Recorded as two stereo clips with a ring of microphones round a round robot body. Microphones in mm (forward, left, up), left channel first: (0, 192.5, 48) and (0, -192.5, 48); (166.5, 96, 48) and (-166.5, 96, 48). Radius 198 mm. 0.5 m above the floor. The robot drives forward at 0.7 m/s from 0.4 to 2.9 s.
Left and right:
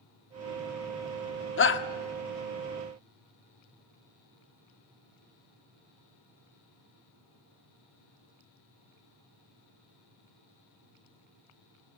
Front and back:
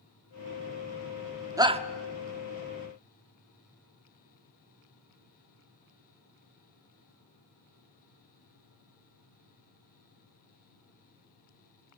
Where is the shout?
110° left, 1.1 m; by 1.8 s 125° left, 1.1 m.